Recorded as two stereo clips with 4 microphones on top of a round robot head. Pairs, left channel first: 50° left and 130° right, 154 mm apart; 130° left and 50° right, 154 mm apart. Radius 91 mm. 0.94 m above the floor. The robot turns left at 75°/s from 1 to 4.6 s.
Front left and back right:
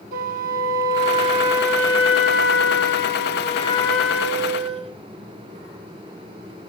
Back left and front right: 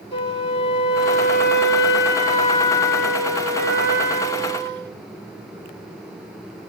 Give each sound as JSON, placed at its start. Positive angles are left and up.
{"t": 0.1, "sound": "a flute", "azimuth_deg": -170, "distance_m": 2.0}